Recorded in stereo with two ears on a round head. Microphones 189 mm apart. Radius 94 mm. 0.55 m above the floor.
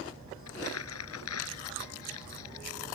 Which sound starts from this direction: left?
Crumpling, at 0.5 s.